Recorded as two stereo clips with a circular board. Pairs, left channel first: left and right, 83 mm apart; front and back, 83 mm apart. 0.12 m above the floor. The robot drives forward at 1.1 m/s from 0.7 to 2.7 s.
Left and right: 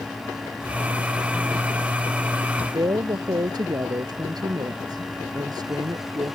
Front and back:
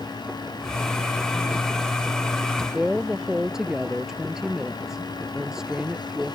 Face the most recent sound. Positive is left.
turn(degrees=-95)